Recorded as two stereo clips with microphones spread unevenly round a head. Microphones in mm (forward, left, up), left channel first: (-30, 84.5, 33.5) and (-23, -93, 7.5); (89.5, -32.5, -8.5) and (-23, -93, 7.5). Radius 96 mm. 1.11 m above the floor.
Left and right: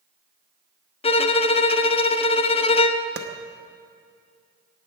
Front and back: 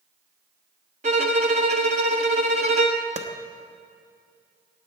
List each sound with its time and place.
1.0 s a violin: 150° left, 0.5 m
3.2 s a clap: 125° right, 0.9 m